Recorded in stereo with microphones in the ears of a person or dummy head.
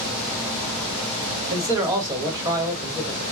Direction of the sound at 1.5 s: 15° right (ahead or behind).